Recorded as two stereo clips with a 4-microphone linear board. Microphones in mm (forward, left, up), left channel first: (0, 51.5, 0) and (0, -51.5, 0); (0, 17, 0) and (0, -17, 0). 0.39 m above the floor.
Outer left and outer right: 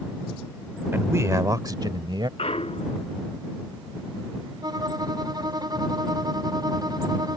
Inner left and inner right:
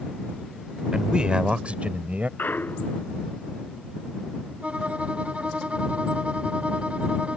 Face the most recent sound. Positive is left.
turn(degrees=-40)  # may be behind; listen again after turning